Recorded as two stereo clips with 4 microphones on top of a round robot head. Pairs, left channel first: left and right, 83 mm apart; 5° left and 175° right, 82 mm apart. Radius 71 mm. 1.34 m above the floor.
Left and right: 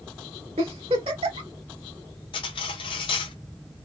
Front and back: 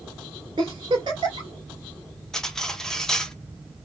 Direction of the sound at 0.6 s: 125° right.